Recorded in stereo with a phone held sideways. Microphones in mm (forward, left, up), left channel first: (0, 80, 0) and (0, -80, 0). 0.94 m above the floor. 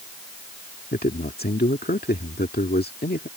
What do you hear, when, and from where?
0.9 s a man speaking: 80° left